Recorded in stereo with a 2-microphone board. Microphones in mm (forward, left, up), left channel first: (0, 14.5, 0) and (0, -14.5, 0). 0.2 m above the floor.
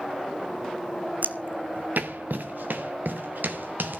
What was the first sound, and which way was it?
Footsteps, 60° right (ahead or behind).